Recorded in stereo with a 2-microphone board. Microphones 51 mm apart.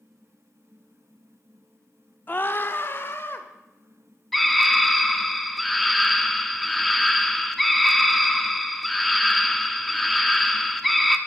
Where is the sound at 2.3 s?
40° left (ahead or behind), 0.9 m; by 3.5 s 55° left (ahead or behind), 1.9 m.